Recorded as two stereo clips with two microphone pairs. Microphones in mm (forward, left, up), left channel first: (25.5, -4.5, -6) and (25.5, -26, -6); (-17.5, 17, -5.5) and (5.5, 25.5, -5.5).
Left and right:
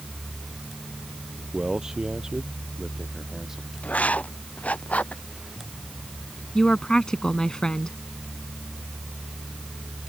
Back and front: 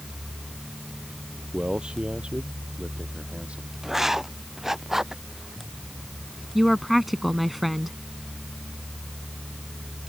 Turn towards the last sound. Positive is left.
turn(degrees=105)